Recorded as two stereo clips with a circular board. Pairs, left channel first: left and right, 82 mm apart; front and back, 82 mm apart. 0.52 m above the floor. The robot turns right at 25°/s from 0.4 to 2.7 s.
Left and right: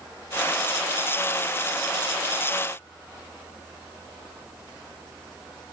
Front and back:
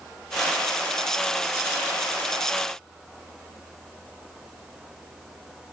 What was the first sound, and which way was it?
Only background noise.